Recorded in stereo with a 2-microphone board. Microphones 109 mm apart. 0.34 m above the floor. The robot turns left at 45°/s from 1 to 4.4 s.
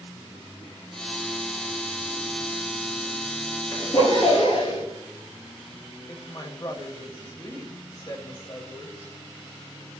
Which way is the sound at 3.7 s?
155° left.